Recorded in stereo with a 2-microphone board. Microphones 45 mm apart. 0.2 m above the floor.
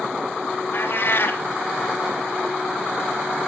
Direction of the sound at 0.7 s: 45° left (ahead or behind).